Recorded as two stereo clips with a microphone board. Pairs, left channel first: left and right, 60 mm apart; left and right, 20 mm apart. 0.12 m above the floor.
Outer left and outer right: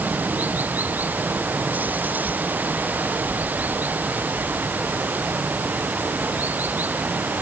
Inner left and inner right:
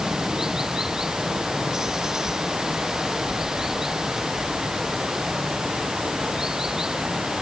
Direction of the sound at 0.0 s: 25° right (ahead or behind).